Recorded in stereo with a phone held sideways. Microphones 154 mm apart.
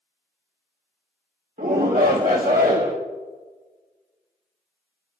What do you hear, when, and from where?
1.6 s a shout: 70° right (ahead or behind), 1.6 m